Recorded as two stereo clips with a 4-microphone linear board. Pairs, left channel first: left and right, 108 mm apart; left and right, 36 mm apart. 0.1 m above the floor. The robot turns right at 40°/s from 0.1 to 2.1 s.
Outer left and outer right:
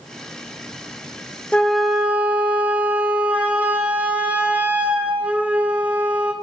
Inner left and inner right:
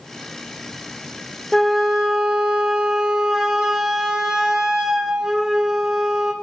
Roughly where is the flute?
Centre.